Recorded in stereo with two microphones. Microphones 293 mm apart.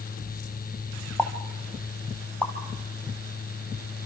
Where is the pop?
5° left (ahead or behind), 3 m.